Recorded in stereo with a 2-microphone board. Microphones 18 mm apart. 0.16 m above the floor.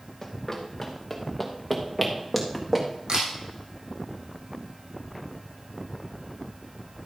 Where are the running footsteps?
15° left (ahead or behind), 2.5 m; by 2.9 s 15° right (ahead or behind), 3 m.